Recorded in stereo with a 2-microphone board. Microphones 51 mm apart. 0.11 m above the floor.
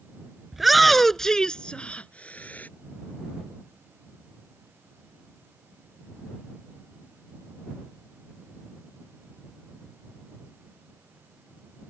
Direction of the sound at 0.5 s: 5° right (ahead or behind).